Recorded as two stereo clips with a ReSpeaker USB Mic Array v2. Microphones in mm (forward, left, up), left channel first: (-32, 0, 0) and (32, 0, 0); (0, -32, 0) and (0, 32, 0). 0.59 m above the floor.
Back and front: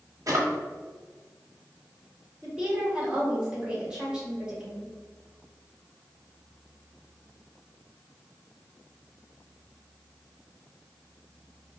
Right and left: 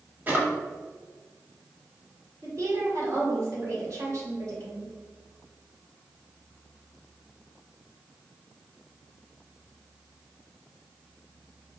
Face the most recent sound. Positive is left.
turn(degrees=75)